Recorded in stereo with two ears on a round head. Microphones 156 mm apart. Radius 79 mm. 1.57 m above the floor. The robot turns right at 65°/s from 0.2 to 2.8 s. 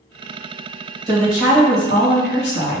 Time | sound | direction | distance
1.1 | a woman speaking | 20° right | 1.6 m